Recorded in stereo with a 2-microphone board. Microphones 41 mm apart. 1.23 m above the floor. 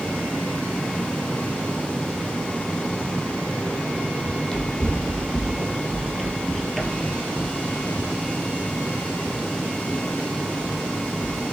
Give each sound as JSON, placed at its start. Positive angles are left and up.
{"t": 4.2, "sound": "running footsteps", "side_deg": 20, "distance_m": 2.0}